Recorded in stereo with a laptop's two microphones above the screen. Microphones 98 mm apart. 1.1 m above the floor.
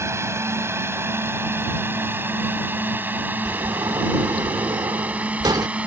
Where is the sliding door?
45° right (ahead or behind).